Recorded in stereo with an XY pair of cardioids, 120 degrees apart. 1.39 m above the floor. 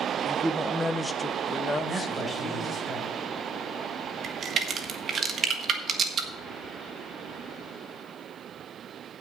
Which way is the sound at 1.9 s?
10° right.